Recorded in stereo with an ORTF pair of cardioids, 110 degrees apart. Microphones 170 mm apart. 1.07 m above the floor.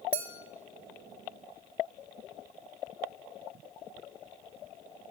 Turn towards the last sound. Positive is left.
turn(degrees=-35)